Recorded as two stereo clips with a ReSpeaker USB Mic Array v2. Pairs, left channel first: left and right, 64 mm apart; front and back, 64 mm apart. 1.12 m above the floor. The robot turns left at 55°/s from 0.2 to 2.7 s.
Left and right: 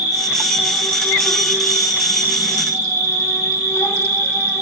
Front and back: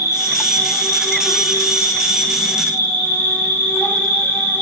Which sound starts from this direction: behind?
An insect, at 0.0 s.